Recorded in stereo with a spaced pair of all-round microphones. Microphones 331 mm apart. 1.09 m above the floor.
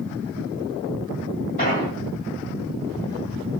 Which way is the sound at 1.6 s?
25° left (ahead or behind).